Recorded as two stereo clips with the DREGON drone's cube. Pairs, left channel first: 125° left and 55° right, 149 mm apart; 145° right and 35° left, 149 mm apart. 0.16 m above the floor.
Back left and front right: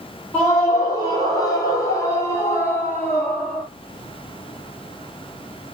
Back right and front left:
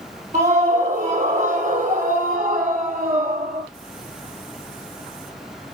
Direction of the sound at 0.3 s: 70° left.